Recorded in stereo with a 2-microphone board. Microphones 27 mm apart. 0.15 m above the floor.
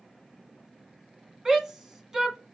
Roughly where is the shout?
Centre.